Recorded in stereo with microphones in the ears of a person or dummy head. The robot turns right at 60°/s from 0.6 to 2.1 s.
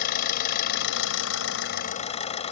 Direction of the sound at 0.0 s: 60° left.